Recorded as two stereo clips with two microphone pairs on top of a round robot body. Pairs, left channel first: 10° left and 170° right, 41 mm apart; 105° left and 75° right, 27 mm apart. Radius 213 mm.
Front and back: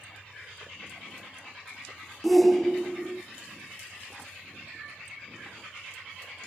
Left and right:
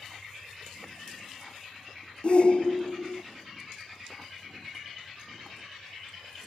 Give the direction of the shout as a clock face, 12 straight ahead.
9 o'clock.